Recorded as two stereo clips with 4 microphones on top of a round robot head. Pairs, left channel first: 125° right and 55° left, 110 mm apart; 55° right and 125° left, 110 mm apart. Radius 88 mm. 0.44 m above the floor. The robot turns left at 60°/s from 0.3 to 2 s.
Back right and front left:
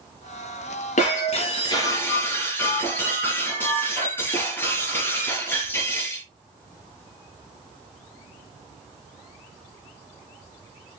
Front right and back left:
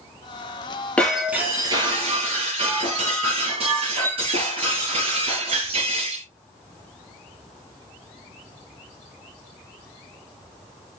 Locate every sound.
1.0 s breaking glass: 135° right, 5.5 m; by 6.2 s 165° left, 5.5 m